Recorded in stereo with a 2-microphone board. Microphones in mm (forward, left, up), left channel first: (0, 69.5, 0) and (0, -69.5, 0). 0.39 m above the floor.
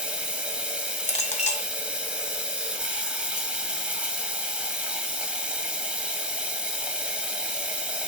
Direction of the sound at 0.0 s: 10° right (ahead or behind).